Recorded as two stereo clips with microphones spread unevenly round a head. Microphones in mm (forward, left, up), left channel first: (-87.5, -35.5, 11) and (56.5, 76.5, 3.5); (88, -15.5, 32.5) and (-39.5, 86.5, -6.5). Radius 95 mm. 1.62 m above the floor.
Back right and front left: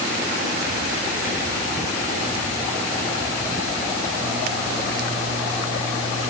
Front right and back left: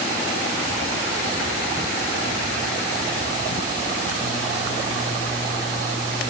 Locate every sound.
Only background noise.